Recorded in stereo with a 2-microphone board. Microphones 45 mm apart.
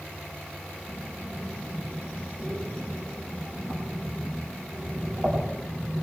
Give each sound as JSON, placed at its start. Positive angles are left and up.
{"t": 0.9, "sound": "breathing", "side_deg": -45, "distance_m": 7.0}